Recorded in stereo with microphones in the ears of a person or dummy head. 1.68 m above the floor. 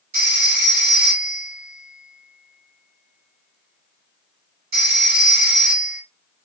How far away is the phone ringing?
About 1.5 m.